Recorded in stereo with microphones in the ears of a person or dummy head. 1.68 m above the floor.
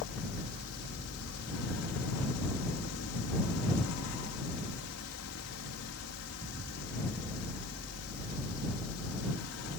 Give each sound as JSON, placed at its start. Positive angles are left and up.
{"t": 0.0, "sound": "a fan", "side_deg": 85}